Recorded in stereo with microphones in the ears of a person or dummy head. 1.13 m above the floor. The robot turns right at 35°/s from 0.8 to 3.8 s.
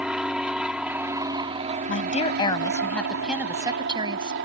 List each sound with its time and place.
0.0 s an aircraft: straight behind; by 4.5 s 75° right
1.9 s a woman speaking: 135° left; by 4.3 s 160° right